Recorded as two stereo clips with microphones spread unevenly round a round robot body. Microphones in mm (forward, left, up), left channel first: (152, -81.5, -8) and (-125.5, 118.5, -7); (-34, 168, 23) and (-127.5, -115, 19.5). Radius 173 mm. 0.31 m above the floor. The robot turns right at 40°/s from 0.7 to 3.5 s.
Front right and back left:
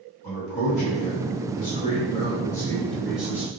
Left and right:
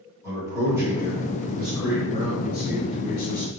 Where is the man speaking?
40° right, 1.6 m; by 3.5 s 70° left, 1.6 m.